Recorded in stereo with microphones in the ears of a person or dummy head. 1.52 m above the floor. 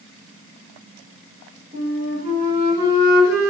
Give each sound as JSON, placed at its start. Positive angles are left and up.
{"t": 1.7, "sound": "a flute", "side_deg": -20, "distance_m": 2.0}